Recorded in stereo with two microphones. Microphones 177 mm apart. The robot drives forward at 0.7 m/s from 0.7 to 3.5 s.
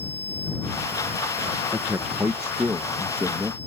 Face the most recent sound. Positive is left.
turn(degrees=-10)  # may be behind; listen again after turning